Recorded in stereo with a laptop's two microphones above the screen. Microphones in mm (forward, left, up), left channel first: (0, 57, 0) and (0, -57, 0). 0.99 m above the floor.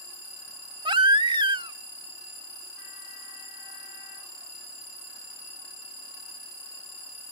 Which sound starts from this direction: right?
A baby crying, at 0.8 s.